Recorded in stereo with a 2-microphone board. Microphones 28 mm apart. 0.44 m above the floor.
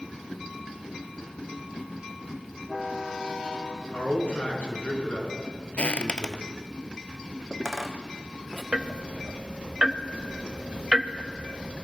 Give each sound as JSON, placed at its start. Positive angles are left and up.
{"t": 3.9, "sound": "a man speaking", "side_deg": 55, "distance_m": 6.0}
{"t": 5.8, "sound": "footsteps", "side_deg": 40, "distance_m": 0.5}
{"t": 8.7, "sound": "ticking", "side_deg": -35, "distance_m": 0.8}